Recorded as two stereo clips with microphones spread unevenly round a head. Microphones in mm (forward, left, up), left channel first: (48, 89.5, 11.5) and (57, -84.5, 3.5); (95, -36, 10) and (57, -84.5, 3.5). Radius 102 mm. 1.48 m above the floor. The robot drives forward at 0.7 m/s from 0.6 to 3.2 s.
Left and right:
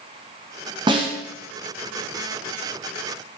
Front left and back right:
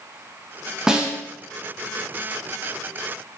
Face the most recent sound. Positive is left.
turn(degrees=-170)